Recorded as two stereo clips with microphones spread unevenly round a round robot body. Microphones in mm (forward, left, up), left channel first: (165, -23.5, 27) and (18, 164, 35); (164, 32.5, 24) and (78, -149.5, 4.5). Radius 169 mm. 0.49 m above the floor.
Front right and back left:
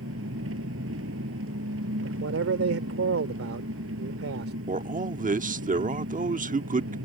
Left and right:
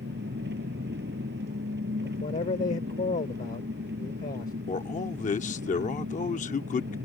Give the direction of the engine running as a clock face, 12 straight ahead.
6 o'clock.